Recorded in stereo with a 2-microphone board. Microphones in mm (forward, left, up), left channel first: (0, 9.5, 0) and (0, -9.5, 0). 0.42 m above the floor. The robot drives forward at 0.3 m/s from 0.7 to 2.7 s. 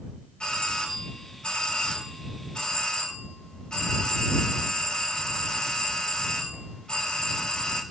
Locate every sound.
0.4 s a doorbell: 55° left (ahead or behind), 3.5 m